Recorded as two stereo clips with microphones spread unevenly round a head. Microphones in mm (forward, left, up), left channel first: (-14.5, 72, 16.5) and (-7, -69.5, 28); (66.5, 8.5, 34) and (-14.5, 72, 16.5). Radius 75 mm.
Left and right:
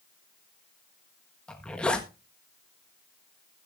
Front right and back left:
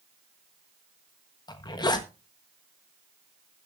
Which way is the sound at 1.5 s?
10° left.